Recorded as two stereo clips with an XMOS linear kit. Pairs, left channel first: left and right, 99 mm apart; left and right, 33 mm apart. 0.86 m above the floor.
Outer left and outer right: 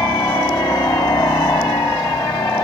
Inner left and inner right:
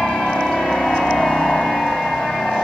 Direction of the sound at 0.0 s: 35° left (ahead or behind).